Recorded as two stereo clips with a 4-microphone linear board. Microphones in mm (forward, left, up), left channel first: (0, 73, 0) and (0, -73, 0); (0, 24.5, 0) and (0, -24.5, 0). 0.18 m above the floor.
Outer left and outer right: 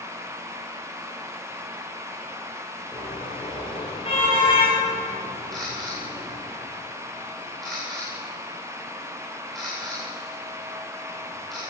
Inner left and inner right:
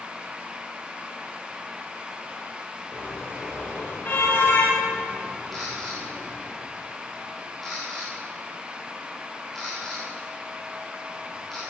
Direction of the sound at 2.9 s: 40° left (ahead or behind).